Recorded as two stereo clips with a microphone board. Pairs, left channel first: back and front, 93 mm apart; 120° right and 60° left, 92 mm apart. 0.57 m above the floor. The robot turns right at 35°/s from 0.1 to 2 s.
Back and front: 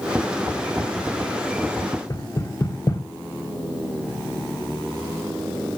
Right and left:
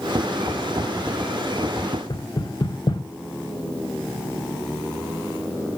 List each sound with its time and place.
2.1 s knocking: 140° right, 1.3 m